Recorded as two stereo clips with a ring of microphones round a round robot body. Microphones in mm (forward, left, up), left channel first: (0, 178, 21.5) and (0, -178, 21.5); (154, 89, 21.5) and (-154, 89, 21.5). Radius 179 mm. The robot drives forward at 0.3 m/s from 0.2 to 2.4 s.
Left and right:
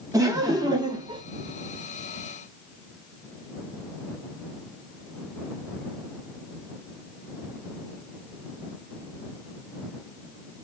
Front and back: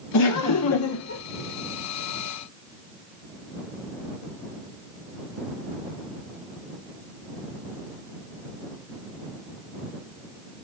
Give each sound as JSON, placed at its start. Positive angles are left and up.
{"t": 0.1, "sound": "laughter", "azimuth_deg": -10, "distance_m": 0.9}